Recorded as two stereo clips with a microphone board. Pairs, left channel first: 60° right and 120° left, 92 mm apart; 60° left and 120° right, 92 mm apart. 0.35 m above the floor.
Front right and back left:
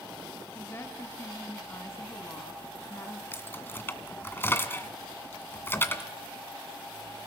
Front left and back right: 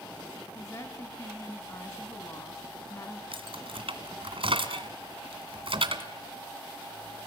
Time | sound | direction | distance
0.6 | a woman speaking | 5° left | 2.5 m
3.3 | keys jangling | 125° right | 1.8 m